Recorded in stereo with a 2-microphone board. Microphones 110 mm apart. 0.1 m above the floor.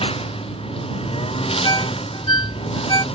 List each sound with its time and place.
0.0 s a lawn mower: 60° left (ahead or behind)
1.6 s a ringtone: 40° left (ahead or behind)